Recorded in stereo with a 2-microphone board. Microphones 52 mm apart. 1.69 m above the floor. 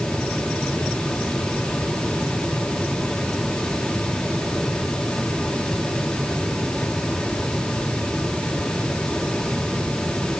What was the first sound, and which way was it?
Only background noise.